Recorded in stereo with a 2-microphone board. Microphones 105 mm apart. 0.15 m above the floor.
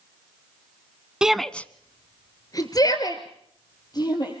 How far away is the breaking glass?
I don't hear breaking glass.